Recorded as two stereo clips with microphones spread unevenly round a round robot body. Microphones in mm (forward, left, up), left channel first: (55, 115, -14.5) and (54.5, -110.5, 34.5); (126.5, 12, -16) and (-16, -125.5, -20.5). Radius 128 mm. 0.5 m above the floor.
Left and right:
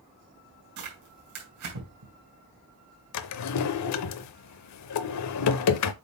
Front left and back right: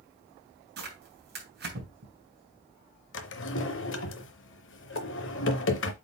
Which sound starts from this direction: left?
A drawer, at 3.1 s.